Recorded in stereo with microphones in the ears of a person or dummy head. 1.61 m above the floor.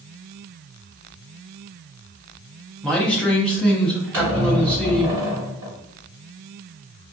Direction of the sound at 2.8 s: 5° left (ahead or behind).